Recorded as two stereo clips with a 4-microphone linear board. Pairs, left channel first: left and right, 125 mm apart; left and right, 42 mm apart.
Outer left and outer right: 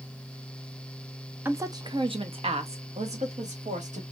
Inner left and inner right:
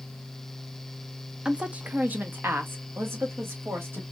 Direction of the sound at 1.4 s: 15° right (ahead or behind).